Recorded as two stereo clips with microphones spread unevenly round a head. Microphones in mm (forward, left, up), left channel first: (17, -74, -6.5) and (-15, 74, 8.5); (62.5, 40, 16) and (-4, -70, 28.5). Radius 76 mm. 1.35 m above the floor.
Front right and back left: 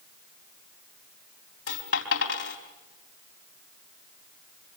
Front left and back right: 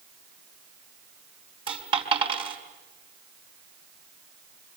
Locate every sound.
1.7 s a dropped coin: 75° right, 4 m